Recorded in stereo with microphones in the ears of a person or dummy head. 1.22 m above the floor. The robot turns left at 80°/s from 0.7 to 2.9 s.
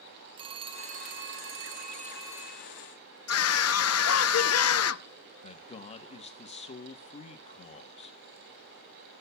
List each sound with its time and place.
0.4 s a phone ringing: 30° right, 0.8 m; by 2.7 s 170° left, 0.8 m
3.3 s a scream: 75° left (ahead or behind), 0.8 m
5.4 s a man speaking: 35° left (ahead or behind), 1.1 m